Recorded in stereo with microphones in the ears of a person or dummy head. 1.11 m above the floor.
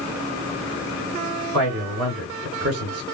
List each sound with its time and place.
1.5 s a man speaking: 85° right, 3 m